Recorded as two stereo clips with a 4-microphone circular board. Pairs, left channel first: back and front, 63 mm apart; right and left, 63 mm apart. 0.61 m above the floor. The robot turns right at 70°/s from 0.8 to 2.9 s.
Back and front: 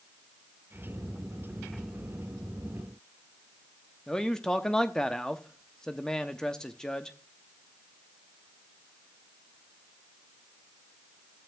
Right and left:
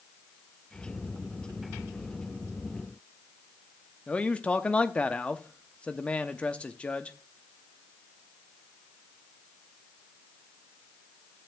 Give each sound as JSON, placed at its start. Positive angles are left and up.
{"t": 4.1, "sound": "a man speaking", "azimuth_deg": -120, "distance_m": 0.6}